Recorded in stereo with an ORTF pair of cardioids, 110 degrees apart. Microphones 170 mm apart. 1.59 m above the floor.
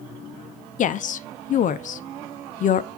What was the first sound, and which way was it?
A woman speaking, 50° left.